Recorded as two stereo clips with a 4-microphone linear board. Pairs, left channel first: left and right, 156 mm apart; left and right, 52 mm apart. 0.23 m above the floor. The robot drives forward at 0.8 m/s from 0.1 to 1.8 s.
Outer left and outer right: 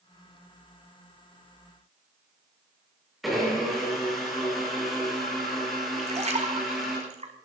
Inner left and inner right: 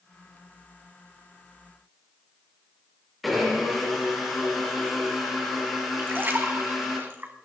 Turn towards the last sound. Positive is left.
turn(degrees=-45)  # may be behind; listen again after turning